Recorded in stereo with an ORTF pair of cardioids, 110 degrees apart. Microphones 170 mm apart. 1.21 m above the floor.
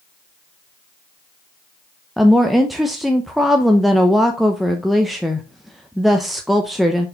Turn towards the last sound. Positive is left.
turn(degrees=0)